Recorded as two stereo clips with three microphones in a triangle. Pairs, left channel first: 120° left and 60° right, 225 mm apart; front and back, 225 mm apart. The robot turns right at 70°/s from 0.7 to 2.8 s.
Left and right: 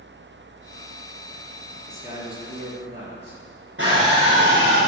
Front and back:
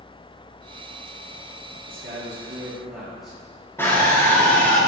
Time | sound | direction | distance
1.9 | a man speaking | 155° right | 5 m
3.8 | a scream | 80° right | 5 m